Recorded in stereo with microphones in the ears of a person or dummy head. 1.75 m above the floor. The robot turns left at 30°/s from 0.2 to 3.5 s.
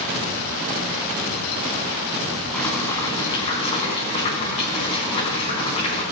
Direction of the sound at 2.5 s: 10° left (ahead or behind).